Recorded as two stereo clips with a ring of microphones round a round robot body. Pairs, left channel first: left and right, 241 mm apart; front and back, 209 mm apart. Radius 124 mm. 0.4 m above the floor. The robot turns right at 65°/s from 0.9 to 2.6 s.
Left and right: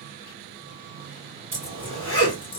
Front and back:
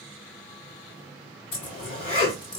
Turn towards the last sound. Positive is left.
turn(degrees=55)